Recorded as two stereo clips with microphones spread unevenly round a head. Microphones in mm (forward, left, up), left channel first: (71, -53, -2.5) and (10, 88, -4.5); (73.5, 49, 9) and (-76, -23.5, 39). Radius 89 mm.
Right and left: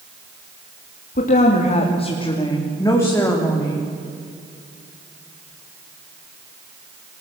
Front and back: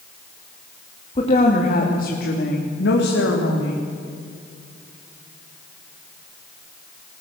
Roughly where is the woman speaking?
Ahead right.